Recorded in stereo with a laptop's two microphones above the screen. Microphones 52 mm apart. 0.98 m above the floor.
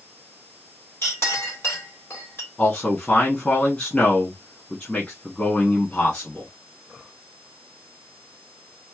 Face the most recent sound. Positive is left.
turn(degrees=20)  # may be behind; listen again after turning